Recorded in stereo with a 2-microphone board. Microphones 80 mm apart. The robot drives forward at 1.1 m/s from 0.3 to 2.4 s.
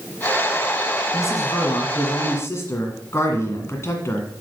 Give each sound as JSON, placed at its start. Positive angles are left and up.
{"t": 1.1, "sound": "a man speaking", "side_deg": 35, "distance_m": 1.8}